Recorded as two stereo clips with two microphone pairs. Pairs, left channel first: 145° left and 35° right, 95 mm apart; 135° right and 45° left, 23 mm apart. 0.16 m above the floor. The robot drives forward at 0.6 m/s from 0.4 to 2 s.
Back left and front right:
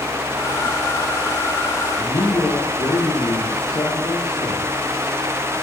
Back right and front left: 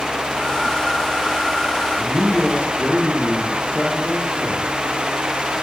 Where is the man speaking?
165° left, 4.5 m.